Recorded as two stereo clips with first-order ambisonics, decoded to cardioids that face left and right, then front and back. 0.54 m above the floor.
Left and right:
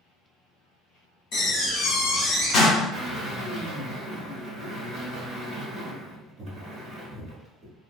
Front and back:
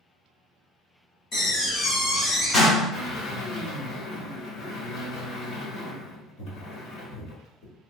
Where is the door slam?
50° left, 1.4 m.